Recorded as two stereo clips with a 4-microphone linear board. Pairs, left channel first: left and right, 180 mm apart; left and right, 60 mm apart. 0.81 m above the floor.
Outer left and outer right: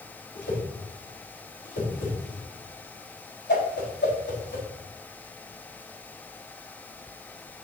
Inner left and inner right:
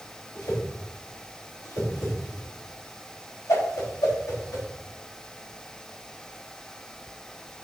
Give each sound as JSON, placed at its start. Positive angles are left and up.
{"t": 0.3, "sound": "a whoosh", "side_deg": 75, "distance_m": 3.5}